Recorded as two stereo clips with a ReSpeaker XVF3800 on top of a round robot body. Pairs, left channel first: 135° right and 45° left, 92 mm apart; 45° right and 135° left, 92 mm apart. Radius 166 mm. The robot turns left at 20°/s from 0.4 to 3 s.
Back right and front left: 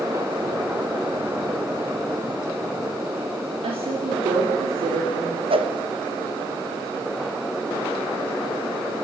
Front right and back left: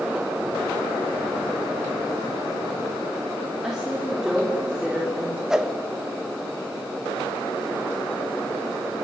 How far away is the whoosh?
About 2.0 m.